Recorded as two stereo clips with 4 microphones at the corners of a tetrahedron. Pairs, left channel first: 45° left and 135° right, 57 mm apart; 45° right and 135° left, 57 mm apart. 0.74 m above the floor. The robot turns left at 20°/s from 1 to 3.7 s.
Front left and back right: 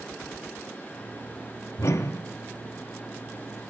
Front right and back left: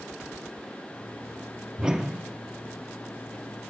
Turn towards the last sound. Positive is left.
turn(degrees=20)